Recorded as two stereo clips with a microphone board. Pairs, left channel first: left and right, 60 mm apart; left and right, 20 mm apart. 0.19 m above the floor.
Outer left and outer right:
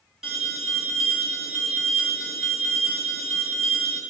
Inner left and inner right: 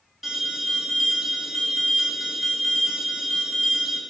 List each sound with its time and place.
0.2 s an alarm: 10° right (ahead or behind), 2.0 m